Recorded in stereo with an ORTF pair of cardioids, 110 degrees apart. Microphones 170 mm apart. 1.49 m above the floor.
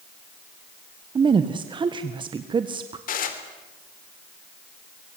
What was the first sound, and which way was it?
A woman speaking, 30° right.